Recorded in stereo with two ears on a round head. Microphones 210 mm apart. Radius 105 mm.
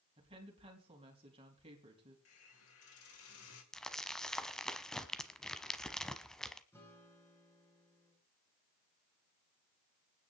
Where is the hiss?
65° left (ahead or behind), 3 m.